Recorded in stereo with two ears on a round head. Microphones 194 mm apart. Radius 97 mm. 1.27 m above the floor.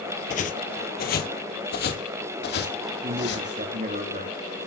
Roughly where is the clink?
I don't hear a clink.